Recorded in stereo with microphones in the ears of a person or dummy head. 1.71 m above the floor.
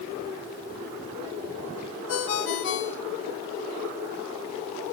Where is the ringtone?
65° left (ahead or behind), 1.9 m.